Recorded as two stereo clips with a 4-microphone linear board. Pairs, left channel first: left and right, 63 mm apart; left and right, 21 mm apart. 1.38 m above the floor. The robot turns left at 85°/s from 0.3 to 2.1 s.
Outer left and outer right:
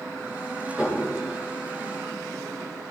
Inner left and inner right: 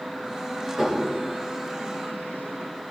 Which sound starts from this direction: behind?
Dishes clattering, at 0.8 s.